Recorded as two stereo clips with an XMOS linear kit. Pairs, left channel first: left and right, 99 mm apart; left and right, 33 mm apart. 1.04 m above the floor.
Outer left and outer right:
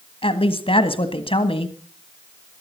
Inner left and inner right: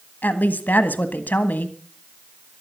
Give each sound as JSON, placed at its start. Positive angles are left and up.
{"t": 0.2, "sound": "a woman speaking", "side_deg": 70, "distance_m": 1.7}